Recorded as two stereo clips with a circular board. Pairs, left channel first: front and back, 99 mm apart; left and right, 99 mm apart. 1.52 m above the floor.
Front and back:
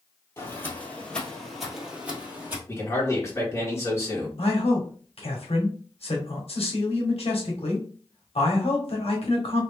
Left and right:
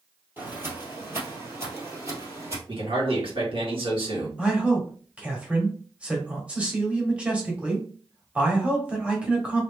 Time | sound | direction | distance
0.4 | footsteps | 40° right | 1.8 m
2.7 | a man speaking | 60° right | 1.8 m
4.4 | a man speaking | 10° right | 1.3 m